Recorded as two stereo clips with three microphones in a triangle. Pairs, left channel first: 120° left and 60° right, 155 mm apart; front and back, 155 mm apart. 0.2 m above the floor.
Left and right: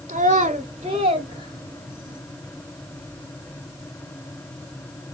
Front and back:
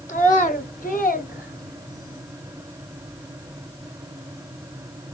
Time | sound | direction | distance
0.1 | a child speaking | 25° right | 1.7 m